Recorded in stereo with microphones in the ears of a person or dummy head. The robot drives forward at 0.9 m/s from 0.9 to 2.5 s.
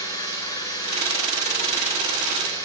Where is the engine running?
25° left (ahead or behind), 7 m; by 2.6 s 20° left (ahead or behind), 8.5 m.